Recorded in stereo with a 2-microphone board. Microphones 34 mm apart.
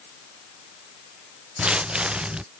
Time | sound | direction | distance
1.6 | footsteps | 30° right (ahead or behind) | ?